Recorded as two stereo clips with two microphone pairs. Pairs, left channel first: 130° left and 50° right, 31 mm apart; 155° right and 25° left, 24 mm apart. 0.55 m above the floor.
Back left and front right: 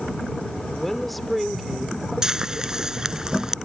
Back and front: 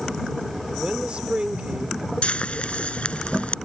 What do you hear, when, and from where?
0.7 s a woman speaking: 55° left; by 2.1 s 20° left
2.2 s frying: 120° right